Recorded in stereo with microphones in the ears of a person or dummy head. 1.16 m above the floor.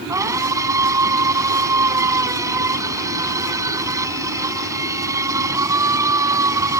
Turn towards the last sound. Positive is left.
turn(degrees=-15)  # may be behind; listen again after turning